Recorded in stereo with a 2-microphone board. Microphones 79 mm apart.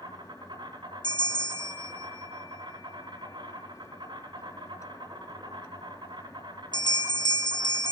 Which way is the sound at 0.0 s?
80° right.